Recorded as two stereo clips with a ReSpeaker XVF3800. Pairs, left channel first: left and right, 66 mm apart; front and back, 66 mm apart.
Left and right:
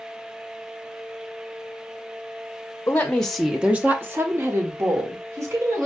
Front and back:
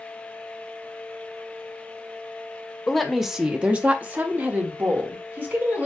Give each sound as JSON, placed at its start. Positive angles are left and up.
{"t": 2.9, "sound": "a woman speaking", "azimuth_deg": 80, "distance_m": 0.7}